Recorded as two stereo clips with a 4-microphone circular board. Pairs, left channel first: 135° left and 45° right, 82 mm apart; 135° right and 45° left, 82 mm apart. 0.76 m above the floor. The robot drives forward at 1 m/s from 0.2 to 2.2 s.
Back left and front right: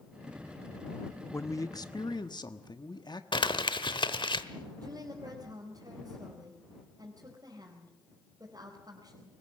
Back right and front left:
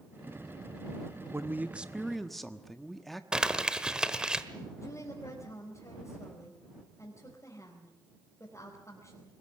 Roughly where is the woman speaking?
Right.